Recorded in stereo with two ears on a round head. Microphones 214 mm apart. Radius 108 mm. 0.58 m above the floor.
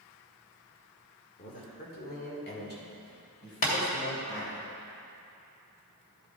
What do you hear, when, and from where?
1.4 s a man speaking: 30° left (ahead or behind), 1.8 m; by 4.6 s 55° left (ahead or behind), 3.5 m
3.6 s tapping: 35° left (ahead or behind), 2.5 m